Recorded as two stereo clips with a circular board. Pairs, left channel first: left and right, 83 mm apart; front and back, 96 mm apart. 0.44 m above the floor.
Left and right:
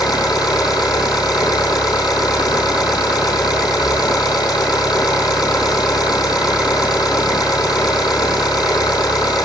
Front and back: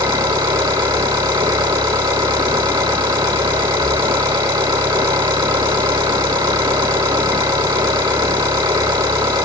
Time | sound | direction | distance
0.0 | an engine running | 125° left | 6 m